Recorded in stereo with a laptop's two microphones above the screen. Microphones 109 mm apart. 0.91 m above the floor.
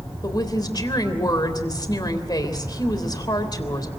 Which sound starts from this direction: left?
A woman speaking, at 0.2 s.